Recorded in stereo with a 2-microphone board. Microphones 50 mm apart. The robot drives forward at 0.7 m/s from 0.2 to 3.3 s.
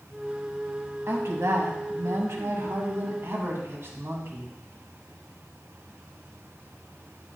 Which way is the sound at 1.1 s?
65° right (ahead or behind).